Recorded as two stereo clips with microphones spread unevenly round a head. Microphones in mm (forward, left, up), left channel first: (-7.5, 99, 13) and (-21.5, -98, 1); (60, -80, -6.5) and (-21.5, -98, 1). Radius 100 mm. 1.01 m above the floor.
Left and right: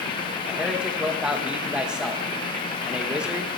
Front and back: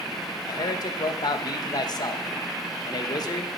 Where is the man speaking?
10° right, 1.1 m.